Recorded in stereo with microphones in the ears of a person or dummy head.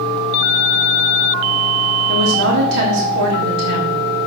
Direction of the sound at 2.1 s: 60° right (ahead or behind).